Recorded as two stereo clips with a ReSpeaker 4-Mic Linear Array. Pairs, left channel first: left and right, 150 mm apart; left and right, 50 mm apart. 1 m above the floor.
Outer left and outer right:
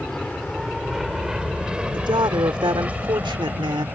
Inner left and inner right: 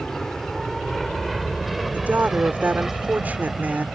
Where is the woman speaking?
30° right (ahead or behind).